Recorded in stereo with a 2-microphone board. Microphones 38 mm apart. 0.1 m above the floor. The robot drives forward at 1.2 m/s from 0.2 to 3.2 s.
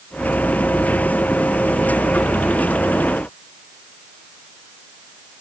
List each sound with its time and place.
Only background noise.